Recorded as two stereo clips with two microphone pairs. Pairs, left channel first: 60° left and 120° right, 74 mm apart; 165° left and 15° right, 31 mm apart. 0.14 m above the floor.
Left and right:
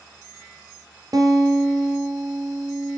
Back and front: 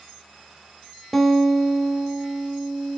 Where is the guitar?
115° right, 1.1 m.